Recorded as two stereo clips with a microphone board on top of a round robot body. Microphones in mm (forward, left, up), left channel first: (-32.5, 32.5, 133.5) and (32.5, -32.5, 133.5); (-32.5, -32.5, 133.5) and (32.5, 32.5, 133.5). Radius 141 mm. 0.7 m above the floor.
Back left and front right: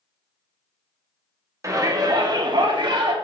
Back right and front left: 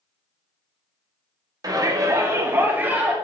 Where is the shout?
5° left, 1.9 m; by 3.1 s 25° right, 2.5 m.